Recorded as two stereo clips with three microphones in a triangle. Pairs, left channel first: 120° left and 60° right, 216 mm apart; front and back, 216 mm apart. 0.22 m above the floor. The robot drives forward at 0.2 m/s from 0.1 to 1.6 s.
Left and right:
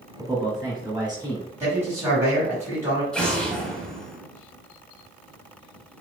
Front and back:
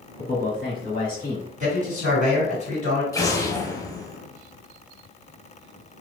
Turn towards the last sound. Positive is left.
turn(degrees=45)